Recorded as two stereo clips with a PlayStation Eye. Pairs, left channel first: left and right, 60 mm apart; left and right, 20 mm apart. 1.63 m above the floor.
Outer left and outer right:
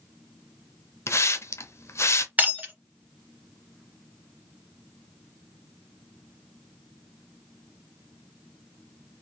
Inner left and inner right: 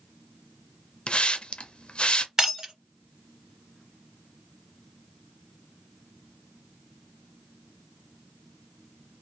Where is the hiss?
50° left (ahead or behind), 0.6 m.